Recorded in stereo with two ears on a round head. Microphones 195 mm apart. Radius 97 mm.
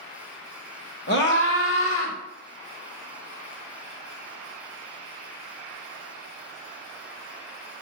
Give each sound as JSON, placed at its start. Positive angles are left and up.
{"t": 1.1, "sound": "a scream", "side_deg": 55, "distance_m": 1.8}